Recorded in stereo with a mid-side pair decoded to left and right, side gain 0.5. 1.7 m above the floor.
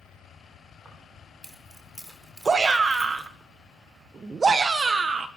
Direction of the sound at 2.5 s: 30° right.